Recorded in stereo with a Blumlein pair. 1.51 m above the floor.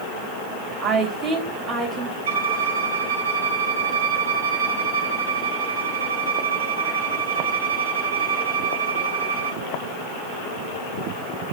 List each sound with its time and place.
0.8 s a woman speaking: 10° right, 2.5 m
2.3 s a violin: 60° right, 1.4 m